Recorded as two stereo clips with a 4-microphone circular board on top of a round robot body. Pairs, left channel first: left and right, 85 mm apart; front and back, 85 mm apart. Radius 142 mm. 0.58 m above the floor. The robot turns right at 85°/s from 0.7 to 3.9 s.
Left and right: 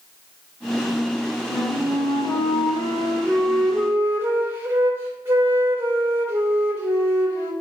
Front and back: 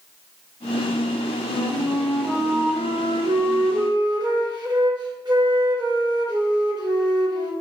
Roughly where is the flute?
Ahead.